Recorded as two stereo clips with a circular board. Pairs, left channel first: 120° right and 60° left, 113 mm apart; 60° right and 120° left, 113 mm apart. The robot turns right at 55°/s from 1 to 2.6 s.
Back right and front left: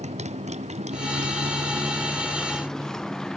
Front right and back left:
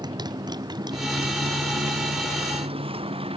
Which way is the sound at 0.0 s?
65° left.